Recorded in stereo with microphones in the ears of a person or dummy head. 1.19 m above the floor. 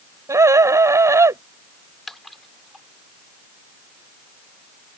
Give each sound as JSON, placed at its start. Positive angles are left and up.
{"t": 0.3, "sound": "a scream", "side_deg": -10}
{"t": 2.1, "sound": "a splash", "side_deg": 5}